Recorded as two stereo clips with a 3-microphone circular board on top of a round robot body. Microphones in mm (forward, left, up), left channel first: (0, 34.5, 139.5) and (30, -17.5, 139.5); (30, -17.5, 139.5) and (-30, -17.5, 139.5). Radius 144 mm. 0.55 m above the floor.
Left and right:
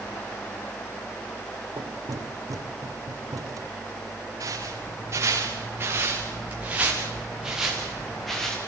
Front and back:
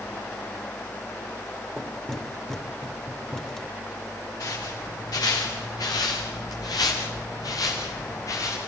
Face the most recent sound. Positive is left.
turn(degrees=35)